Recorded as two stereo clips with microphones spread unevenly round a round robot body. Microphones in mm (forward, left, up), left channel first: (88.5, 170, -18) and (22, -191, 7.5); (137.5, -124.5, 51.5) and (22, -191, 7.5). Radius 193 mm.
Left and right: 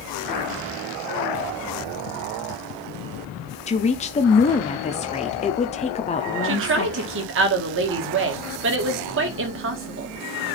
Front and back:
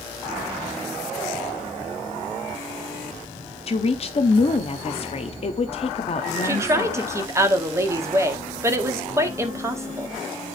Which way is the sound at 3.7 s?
40° left.